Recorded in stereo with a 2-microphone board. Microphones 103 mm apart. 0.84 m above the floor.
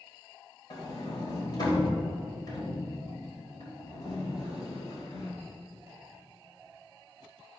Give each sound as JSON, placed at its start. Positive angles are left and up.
{"t": 0.7, "sound": "a sliding door", "side_deg": 40, "distance_m": 2.5}